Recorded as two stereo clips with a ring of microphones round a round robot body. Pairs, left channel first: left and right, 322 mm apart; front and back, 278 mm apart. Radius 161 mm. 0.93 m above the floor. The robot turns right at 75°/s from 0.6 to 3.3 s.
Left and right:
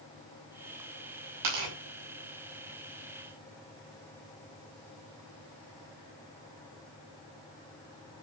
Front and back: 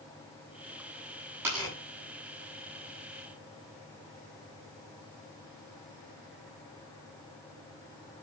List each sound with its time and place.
1.4 s tearing paper: 100° right, 8.5 m; by 1.8 s 75° right, 8.5 m